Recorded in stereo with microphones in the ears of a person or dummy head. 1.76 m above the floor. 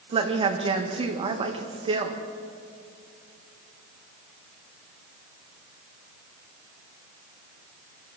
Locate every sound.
0.1 s a woman speaking: 30° right (ahead or behind), 1.8 m